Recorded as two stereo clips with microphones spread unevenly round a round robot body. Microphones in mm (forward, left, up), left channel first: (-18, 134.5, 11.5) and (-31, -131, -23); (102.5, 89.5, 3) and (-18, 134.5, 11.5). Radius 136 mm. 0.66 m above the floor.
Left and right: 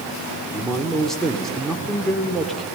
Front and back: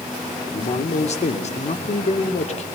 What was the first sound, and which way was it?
A man speaking, 5° right.